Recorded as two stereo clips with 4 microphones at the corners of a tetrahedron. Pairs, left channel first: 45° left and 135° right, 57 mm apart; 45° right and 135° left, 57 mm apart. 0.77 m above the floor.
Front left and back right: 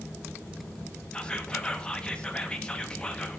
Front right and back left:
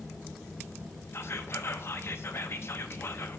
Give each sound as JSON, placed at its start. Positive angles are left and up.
{"t": 1.1, "sound": "whispering", "azimuth_deg": -25, "distance_m": 0.7}